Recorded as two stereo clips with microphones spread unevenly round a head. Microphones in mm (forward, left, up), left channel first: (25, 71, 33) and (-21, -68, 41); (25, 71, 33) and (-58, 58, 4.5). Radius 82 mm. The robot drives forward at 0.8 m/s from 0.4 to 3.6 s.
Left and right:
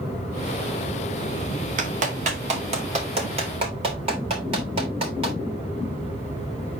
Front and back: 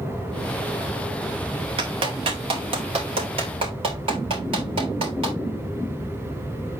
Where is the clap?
150° right, 1.9 m; by 5.4 s 160° right, 3 m.